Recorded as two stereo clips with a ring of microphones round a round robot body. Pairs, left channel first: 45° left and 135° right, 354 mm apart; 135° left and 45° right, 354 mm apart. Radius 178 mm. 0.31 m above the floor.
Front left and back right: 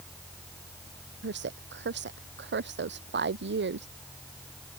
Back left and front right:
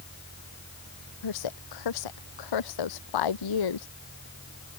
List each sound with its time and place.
1.2 s a woman speaking: 165° left